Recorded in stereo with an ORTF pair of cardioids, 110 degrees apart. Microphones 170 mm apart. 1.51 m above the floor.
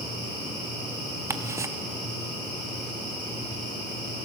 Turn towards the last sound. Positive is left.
turn(degrees=-15)